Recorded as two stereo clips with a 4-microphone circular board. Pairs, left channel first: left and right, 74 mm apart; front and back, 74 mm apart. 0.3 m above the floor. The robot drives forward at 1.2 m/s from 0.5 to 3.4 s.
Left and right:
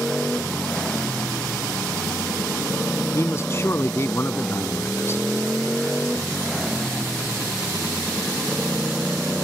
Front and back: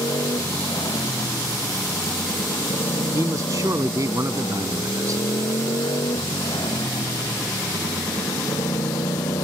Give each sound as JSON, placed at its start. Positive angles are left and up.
{"t": 0.0, "sound": "a motorcycle", "azimuth_deg": 10}
{"t": 3.1, "sound": "a man speaking", "azimuth_deg": 135}